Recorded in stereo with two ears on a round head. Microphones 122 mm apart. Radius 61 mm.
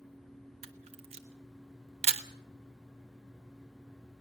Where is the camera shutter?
45° right (ahead or behind), 1.3 m.